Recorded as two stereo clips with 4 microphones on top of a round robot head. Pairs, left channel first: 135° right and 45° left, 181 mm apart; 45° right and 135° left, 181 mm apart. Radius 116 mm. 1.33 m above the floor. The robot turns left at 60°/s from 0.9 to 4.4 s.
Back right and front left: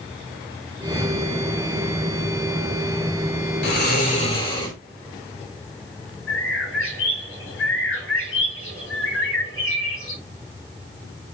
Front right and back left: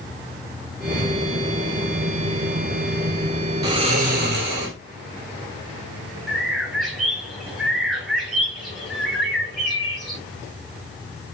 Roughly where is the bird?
Behind right.